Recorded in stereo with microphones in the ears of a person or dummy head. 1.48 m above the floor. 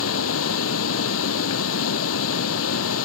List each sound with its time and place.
0.0 s running water: 80° left